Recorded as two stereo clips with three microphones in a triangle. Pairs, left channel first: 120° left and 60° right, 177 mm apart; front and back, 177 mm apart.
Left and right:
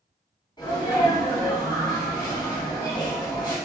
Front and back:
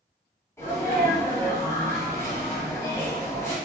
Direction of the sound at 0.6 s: 65° left.